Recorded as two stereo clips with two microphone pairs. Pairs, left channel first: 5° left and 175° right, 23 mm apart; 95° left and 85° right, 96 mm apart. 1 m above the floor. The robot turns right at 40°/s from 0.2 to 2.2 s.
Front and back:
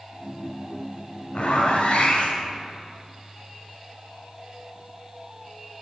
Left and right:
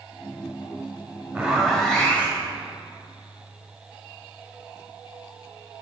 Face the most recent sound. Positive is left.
turn(degrees=15)